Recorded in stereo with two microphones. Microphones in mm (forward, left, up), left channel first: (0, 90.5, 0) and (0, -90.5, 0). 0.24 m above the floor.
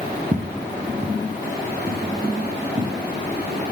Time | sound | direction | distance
0.3 | footsteps | 40° right (ahead or behind) | 1.2 m